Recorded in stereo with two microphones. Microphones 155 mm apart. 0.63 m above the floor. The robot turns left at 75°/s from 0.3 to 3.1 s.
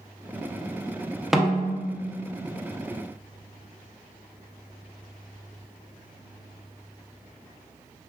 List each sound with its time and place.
1.3 s a snare drum: 175° right, 0.5 m; by 2.2 s 115° left, 0.5 m